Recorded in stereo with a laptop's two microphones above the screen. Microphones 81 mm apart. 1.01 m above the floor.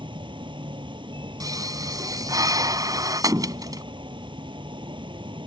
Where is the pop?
50° right (ahead or behind).